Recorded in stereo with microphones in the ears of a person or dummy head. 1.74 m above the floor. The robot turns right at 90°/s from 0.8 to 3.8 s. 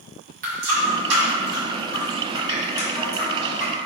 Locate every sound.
0.4 s a running tap: 55° right (ahead or behind), 1.4 m; by 3.7 s 15° right (ahead or behind), 1.4 m